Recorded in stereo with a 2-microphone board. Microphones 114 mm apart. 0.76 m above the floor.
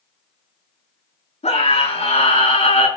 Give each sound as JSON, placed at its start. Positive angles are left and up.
{"t": 1.4, "sound": "a scream", "side_deg": 85, "distance_m": 8.5}